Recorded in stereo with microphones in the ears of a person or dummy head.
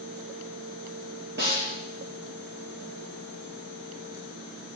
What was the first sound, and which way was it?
A snare drum, 50° right (ahead or behind).